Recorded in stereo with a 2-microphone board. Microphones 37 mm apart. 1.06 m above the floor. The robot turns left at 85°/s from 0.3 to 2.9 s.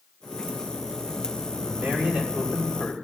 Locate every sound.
1.6 s a man speaking: 120° right, 2.5 m; by 2.9 s 135° left, 2.5 m